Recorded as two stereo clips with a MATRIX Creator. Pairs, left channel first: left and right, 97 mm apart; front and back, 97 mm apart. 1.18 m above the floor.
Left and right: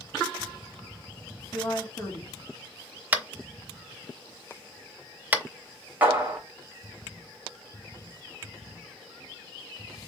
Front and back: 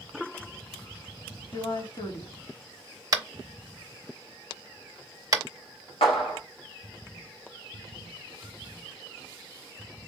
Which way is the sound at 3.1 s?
155° right.